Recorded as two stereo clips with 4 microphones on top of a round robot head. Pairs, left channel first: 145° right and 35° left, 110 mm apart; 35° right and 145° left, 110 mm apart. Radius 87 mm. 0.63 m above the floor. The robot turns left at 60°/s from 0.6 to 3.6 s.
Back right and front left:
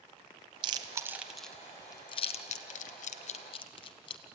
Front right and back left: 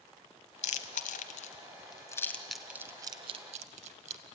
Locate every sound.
0.6 s chewing: 10° right, 0.8 m; by 4.2 s 170° left, 0.8 m